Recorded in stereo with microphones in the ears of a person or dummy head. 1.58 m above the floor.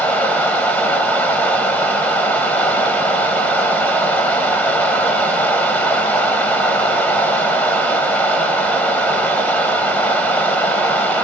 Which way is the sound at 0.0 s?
5° left (ahead or behind).